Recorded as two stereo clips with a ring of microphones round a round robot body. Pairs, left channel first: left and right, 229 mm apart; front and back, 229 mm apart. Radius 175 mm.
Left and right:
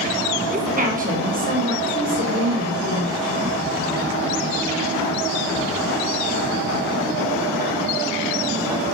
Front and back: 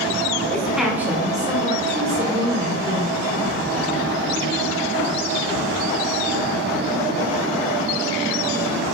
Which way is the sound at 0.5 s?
85° right.